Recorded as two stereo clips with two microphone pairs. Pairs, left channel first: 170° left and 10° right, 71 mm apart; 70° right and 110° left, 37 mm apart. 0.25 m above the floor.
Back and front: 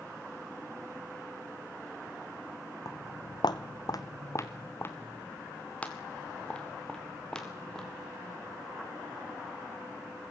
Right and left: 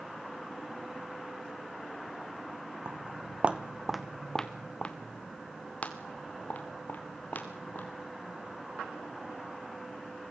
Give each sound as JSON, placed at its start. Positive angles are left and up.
{"t": 2.9, "sound": "footsteps", "azimuth_deg": 135, "distance_m": 1.2}